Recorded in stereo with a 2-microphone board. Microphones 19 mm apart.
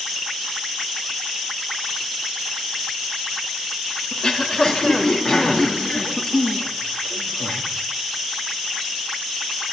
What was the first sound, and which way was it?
Throat clearing, 40° left (ahead or behind).